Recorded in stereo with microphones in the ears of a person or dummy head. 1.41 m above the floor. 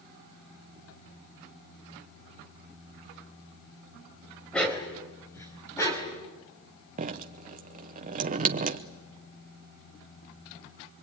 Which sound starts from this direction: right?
Dripping, at 7.0 s.